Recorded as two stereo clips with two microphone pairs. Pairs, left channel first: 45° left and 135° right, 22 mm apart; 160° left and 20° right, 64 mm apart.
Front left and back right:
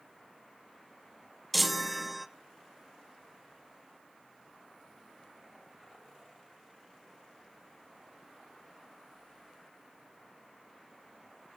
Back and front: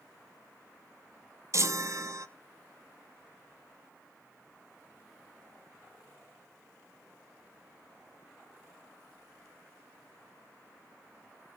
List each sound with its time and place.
1.5 s a chime: 45° right, 0.6 m